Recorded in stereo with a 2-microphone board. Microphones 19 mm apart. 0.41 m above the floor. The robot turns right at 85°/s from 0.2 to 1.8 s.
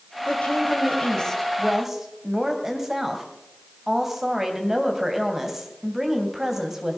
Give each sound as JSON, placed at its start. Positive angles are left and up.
{"t": 0.3, "sound": "a woman speaking", "azimuth_deg": 65, "distance_m": 2.5}